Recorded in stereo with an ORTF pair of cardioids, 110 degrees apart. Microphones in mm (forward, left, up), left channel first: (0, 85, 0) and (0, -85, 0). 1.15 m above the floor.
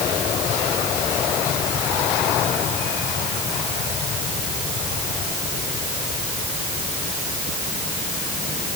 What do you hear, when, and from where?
Only background noise.